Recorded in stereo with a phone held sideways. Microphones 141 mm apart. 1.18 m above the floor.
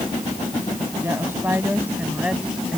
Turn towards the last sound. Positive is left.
turn(degrees=-5)  # may be behind; listen again after turning